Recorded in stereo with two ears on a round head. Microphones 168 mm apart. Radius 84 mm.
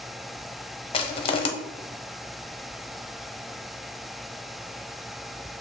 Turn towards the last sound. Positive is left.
turn(degrees=30)  # may be behind; listen again after turning